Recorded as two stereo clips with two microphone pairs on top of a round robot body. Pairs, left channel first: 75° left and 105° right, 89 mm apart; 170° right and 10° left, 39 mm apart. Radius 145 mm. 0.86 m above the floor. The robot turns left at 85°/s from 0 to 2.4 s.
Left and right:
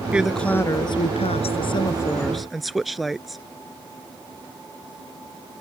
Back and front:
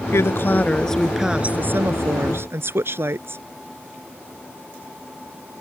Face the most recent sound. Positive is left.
turn(degrees=-15)